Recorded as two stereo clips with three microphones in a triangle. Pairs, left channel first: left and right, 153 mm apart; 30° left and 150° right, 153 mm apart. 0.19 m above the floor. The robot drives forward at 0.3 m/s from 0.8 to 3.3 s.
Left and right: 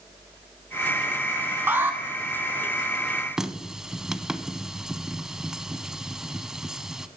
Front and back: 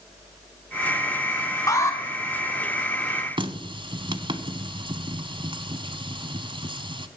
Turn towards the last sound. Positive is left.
turn(degrees=-175)